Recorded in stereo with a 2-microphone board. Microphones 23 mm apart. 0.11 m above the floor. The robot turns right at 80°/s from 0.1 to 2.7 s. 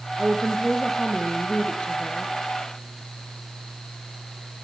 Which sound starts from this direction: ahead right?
A woman speaking, at 0.2 s.